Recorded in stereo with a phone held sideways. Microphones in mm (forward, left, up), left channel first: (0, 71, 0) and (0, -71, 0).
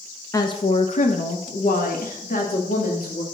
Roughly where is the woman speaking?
Left.